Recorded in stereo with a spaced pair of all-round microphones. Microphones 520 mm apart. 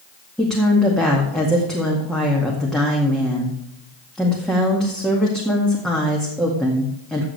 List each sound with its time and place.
0.4 s a woman speaking: centre (ahead or behind), 2.0 m